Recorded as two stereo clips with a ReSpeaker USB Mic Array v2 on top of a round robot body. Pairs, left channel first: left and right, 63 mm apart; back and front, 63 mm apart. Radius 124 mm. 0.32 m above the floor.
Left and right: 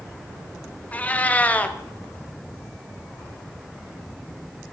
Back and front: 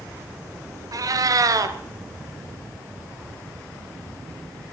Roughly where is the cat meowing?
Ahead.